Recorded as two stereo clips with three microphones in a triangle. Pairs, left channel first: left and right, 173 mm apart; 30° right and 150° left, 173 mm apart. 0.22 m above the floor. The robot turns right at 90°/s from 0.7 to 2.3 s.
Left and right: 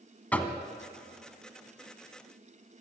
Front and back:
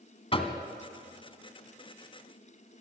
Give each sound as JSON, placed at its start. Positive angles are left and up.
{"t": 0.3, "sound": "knocking", "azimuth_deg": 10, "distance_m": 1.7}